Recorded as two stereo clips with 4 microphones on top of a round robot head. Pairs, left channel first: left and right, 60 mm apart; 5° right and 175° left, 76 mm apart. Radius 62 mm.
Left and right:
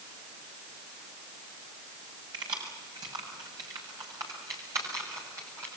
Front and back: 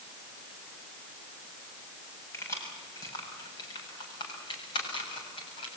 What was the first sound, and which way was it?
Keys jangling, 65° right.